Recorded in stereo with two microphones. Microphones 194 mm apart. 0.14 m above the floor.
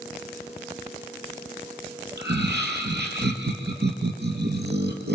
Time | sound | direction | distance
2.2 | laughter | 60° right (ahead or behind) | 3 m